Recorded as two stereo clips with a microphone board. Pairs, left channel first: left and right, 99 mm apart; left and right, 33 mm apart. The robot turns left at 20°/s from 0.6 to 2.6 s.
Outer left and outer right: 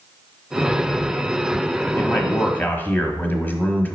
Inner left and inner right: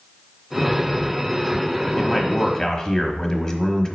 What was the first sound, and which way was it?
A man speaking, 20° left (ahead or behind).